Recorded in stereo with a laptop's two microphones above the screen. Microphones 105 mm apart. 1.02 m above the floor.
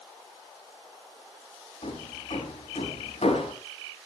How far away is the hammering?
About 4.5 m.